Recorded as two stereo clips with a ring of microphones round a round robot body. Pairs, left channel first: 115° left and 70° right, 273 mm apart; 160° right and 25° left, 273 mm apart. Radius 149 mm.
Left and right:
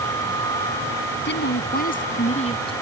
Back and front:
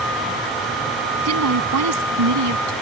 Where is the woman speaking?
60° left; by 2.7 s 40° left.